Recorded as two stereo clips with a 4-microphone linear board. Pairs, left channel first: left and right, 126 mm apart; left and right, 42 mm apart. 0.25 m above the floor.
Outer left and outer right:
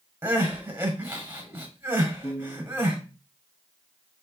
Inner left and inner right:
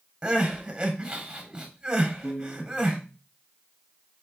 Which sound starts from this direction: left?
A piano, at 2.2 s.